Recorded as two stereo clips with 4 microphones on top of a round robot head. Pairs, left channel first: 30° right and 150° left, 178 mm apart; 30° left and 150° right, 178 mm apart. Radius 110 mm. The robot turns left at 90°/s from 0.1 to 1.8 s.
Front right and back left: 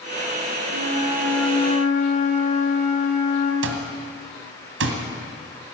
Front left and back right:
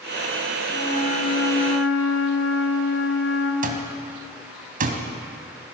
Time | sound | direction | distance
0.7 | a flute | 115° left | 2 m
3.6 | an alarm clock | 165° left | 1.5 m